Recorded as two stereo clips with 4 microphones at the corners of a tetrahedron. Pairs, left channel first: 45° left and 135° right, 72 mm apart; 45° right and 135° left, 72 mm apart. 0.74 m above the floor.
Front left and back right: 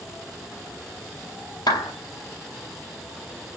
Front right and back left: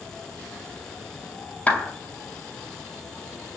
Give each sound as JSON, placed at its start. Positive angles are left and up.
{"t": 1.7, "sound": "a clap", "azimuth_deg": 25, "distance_m": 3.5}